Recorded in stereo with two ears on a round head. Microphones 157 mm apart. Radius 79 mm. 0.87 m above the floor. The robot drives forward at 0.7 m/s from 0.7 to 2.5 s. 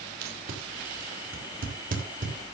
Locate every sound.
0.2 s tape being pulled: 65° right (ahead or behind), 3.5 m; by 2.3 s 50° right (ahead or behind), 4 m